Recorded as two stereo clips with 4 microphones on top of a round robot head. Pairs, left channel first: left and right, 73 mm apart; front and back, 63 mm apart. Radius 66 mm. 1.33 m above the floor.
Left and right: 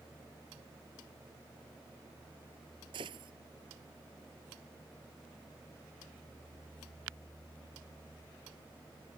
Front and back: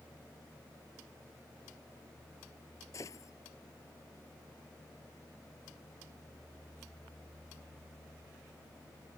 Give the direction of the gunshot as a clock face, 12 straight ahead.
2 o'clock.